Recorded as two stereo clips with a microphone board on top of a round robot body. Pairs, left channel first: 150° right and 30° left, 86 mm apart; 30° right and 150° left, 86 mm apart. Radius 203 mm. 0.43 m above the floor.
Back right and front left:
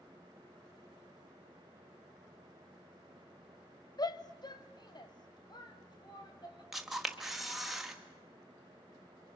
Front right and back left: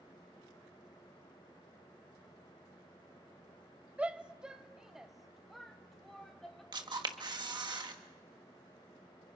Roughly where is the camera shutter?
Behind left.